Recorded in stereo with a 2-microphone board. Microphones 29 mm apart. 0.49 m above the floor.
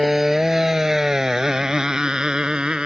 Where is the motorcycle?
10° right (ahead or behind); by 2.9 s 30° right (ahead or behind).